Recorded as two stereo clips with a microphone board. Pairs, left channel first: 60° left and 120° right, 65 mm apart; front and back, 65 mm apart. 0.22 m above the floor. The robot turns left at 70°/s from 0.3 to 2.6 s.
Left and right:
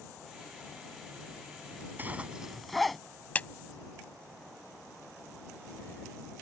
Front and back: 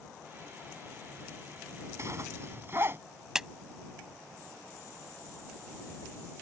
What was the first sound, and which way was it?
A zipper, 170° right.